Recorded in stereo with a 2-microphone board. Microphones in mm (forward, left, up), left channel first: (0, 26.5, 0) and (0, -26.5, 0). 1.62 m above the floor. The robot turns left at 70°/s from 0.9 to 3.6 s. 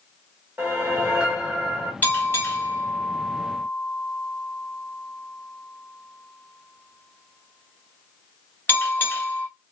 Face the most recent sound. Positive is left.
turn(degrees=40)  # may be behind; listen again after turning